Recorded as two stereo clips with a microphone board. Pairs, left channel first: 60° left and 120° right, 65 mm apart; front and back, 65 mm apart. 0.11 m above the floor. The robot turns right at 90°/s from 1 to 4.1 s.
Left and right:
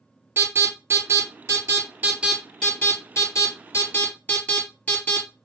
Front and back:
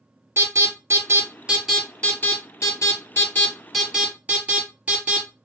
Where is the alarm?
155° right, 3 m; by 5.3 s 125° left, 3 m.